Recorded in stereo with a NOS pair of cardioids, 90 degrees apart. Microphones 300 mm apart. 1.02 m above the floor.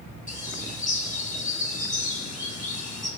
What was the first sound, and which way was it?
A bird, 25° left.